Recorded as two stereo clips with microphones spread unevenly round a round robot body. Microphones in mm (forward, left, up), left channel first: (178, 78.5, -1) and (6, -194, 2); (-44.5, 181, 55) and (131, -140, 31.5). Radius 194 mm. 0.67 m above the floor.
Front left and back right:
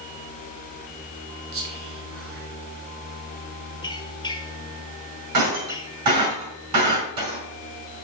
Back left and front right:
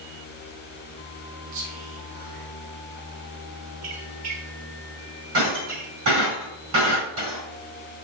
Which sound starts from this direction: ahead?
A squeak, at 3.8 s.